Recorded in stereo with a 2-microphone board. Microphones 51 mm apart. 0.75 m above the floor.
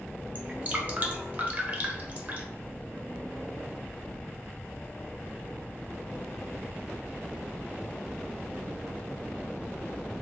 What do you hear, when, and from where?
0.3 s dripping: 35° right (ahead or behind), 0.5 m